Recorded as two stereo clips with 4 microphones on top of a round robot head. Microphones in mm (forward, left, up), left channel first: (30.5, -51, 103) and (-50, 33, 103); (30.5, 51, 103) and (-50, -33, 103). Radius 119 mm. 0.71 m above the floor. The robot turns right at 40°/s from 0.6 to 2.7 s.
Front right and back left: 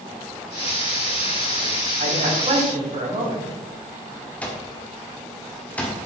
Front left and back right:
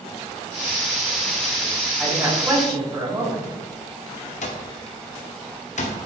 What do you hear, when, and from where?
2.0 s a man speaking: 140° left, 5 m; by 3.6 s 170° left, 5 m
4.4 s an alarm clock: 30° left, 1.7 m